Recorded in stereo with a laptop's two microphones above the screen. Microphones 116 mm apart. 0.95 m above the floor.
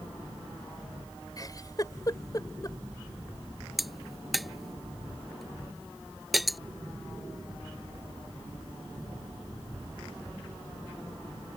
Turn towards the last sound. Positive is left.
turn(degrees=0)  # may be behind; listen again after turning